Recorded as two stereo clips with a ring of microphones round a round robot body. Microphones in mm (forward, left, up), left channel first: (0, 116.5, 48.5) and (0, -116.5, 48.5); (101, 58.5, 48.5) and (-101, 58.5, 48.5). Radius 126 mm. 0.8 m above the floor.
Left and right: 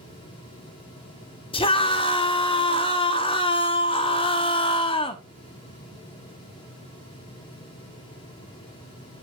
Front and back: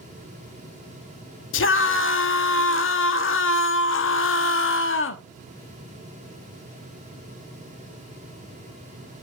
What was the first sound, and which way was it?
A scream, 20° left.